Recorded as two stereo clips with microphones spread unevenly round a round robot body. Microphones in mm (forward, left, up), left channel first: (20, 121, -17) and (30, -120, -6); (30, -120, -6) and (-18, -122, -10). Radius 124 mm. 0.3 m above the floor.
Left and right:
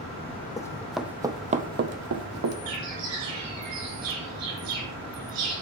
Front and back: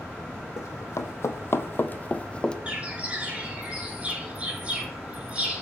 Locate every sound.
0.6 s running footsteps: 15° left, 0.8 m; by 2.6 s 70° right, 0.9 m
2.7 s a bird: 115° right, 4.5 m